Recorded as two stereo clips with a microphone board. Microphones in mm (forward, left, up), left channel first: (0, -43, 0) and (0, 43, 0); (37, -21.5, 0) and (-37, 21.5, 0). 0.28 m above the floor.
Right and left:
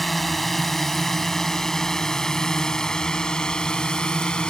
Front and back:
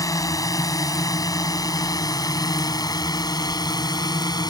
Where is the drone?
5° right; by 4.5 s 15° right.